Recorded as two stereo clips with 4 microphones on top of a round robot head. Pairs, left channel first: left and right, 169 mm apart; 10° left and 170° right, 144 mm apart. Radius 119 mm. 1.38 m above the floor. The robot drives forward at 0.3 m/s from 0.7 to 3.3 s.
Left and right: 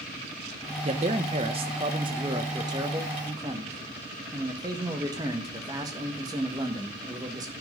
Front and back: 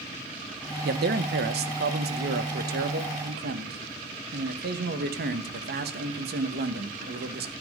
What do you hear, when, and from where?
0.8 s a man speaking: 150° right, 1.0 m; by 7.5 s 160° right, 1.6 m